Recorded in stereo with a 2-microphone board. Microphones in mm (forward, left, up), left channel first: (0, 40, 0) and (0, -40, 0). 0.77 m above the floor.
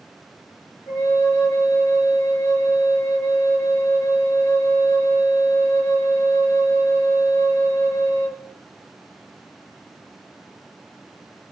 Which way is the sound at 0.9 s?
40° left (ahead or behind).